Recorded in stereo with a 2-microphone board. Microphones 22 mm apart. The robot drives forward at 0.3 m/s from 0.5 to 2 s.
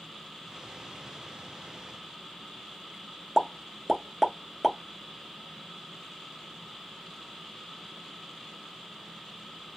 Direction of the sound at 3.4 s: 10° right (ahead or behind).